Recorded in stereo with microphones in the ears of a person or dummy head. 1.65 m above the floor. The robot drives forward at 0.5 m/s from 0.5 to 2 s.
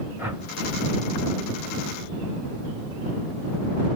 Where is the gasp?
I don't hear a gasp.